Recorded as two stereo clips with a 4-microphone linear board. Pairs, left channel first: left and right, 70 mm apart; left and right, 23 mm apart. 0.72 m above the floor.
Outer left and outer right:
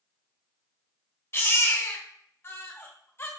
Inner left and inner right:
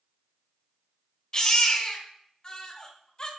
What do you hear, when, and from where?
1.3 s a baby crying: 35° left (ahead or behind), 1.4 m